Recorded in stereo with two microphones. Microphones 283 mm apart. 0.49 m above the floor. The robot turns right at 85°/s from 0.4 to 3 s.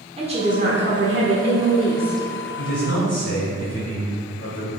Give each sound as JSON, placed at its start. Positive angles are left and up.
{"t": 0.2, "sound": "a woman speaking", "azimuth_deg": -150, "distance_m": 1.1}
{"t": 2.6, "sound": "a man speaking", "azimuth_deg": 45, "distance_m": 2.5}